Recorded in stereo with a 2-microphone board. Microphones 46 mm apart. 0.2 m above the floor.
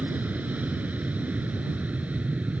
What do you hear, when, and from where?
0.0 s an aircraft: 30° right (ahead or behind)